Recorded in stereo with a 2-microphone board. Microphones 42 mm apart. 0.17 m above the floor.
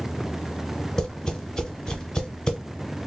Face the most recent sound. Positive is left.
turn(degrees=15)  # may be behind; listen again after turning